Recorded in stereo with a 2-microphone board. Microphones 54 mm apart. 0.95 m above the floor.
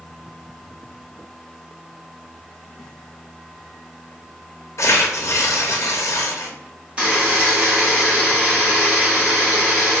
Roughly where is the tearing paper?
Left.